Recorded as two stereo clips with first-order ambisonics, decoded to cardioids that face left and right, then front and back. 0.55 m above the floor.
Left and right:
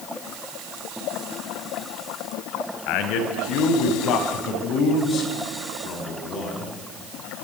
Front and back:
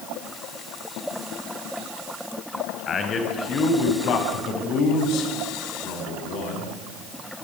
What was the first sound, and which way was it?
A man speaking, 70° left.